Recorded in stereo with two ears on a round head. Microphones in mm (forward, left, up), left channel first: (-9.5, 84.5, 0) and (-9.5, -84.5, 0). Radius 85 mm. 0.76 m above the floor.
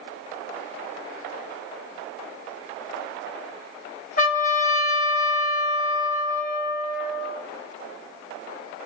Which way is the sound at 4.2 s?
40° left (ahead or behind).